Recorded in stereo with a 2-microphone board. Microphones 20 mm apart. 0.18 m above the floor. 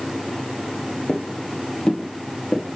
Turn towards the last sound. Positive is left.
turn(degrees=75)  # may be behind; listen again after turning